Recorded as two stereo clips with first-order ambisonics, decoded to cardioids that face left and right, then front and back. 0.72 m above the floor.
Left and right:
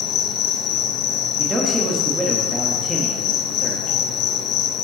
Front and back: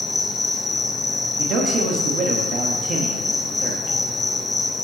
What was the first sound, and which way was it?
An insect, 75° left.